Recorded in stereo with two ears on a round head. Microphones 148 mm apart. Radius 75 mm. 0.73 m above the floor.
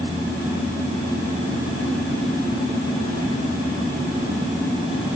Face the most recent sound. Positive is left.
No sound to turn to.